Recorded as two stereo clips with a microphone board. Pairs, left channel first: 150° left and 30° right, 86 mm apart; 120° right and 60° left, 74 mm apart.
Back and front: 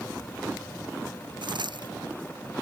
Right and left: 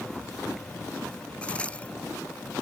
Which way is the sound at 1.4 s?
45° right.